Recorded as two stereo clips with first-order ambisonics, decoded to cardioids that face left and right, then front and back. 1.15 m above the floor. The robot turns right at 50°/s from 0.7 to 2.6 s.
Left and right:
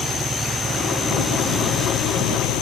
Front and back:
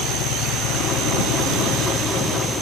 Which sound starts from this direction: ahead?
An engine running, at 0.0 s.